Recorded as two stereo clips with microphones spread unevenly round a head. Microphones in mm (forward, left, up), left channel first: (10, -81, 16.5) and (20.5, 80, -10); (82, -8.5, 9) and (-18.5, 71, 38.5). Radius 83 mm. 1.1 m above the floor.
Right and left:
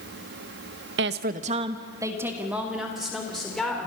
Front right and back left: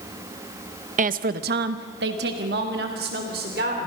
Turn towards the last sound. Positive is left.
turn(degrees=180)